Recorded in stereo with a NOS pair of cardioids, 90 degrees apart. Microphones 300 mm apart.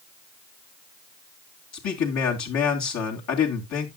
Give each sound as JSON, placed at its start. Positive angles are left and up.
{"t": 1.7, "sound": "a man speaking", "azimuth_deg": 55, "distance_m": 3.0}